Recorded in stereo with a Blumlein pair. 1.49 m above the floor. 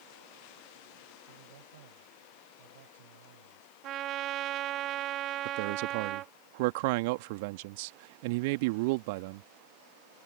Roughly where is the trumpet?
Ahead right.